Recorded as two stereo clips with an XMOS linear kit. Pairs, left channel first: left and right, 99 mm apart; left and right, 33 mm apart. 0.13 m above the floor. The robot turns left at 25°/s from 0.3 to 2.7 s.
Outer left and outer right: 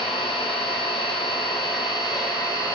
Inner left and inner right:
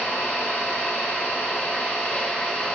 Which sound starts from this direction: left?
An engine running, at 0.0 s.